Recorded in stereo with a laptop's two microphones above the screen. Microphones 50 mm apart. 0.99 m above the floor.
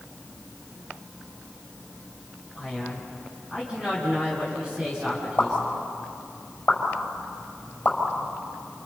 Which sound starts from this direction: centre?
A man speaking, at 2.5 s.